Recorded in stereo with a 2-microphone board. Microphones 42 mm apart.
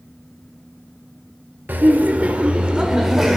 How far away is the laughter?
About 1.3 m.